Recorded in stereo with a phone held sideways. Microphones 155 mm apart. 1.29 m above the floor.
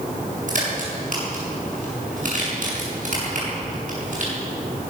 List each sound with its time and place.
0.5 s a crack: 55° right (ahead or behind), 7 m